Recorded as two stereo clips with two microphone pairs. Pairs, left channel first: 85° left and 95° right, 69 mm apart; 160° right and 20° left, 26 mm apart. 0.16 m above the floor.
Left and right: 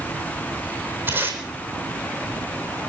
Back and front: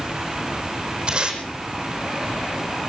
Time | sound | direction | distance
1.1 | tape being pulled | 35° right | 4 m